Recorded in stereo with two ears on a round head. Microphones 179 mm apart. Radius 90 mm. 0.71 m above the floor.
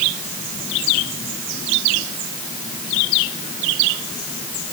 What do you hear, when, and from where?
Only background noise.